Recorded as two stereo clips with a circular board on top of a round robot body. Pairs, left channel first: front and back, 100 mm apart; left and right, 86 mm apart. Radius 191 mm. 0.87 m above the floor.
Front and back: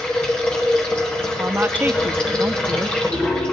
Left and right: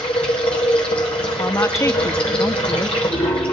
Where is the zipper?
No zipper in this recording.